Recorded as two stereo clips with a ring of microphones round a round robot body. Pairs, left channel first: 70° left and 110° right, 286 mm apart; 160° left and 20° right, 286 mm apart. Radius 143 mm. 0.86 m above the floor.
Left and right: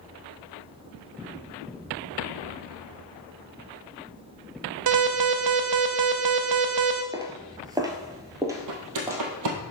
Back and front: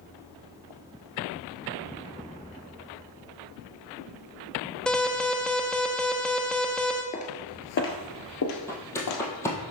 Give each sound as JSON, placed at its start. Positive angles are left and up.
{"t": 4.9, "sound": "an alarm", "azimuth_deg": -115, "distance_m": 0.7}
{"t": 7.1, "sound": "footsteps", "azimuth_deg": -175, "distance_m": 0.9}
{"t": 8.7, "sound": "footsteps", "azimuth_deg": -120, "distance_m": 1.9}